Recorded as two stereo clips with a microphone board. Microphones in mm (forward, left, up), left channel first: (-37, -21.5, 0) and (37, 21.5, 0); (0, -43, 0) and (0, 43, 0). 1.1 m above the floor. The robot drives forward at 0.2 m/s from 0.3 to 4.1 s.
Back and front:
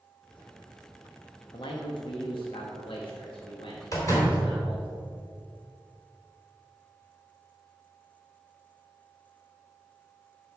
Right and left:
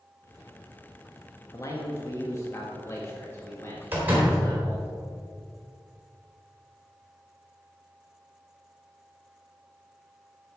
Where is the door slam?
160° left, 3 m.